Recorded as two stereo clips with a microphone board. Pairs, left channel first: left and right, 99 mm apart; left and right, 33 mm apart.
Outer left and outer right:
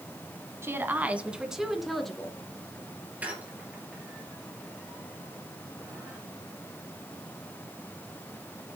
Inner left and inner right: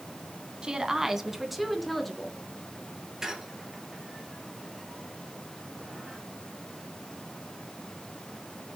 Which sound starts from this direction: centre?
A squeak, at 3.2 s.